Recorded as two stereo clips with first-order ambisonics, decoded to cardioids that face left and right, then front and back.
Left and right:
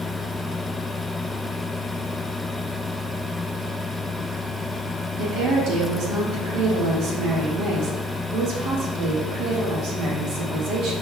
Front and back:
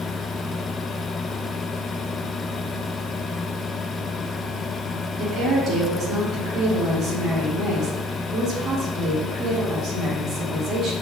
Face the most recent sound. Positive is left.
turn(degrees=-125)